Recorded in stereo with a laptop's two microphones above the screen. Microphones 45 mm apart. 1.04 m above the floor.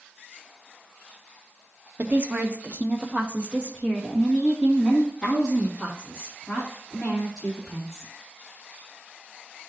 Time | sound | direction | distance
2.0 | a woman speaking | 50° right (ahead or behind) | 0.8 m